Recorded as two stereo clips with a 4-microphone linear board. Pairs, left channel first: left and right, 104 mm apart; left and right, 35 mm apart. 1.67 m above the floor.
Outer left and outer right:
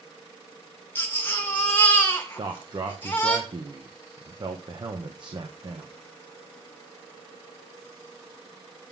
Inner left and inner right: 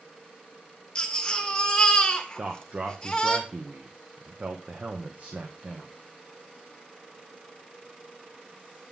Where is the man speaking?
45° right (ahead or behind), 1.4 m.